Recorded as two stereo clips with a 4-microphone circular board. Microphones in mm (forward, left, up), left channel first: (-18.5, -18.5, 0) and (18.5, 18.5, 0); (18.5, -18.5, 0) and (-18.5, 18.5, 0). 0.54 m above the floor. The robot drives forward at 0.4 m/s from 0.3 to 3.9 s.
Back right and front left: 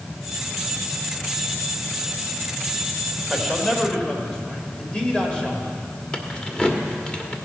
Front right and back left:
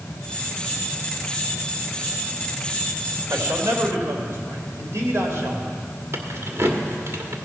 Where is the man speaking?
150° left, 2 m.